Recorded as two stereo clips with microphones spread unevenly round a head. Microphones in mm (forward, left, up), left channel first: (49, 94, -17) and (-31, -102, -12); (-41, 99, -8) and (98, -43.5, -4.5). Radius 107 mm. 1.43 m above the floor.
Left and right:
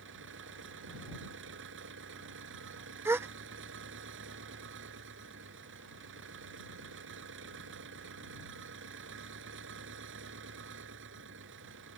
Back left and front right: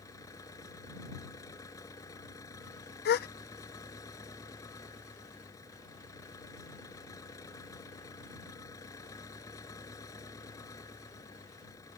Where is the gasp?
170° left.